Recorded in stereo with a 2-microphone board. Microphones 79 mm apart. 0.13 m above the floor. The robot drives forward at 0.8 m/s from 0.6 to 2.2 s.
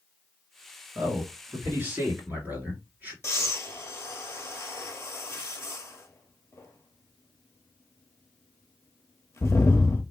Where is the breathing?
35° left (ahead or behind), 0.9 m.